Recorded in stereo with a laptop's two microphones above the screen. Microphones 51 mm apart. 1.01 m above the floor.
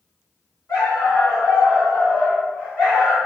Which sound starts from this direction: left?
A dog barking, at 0.7 s.